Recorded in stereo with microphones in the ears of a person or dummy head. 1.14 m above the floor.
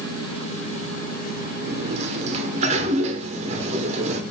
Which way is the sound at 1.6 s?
30° right (ahead or behind).